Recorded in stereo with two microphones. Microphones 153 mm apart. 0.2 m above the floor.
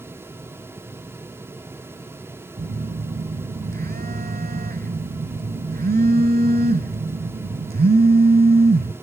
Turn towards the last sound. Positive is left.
turn(degrees=-80)